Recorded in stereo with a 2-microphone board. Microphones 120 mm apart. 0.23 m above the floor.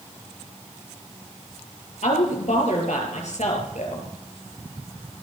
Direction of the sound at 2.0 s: 70° left (ahead or behind).